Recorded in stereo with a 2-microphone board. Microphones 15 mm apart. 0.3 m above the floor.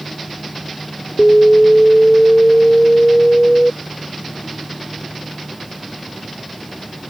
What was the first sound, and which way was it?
An alarm, 25° left (ahead or behind).